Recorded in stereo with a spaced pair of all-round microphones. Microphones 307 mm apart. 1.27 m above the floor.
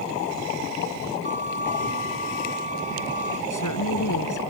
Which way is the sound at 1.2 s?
20° right (ahead or behind).